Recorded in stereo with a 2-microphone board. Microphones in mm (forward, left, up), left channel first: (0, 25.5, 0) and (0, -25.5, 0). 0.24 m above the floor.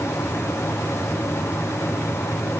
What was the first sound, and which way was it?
Only background noise.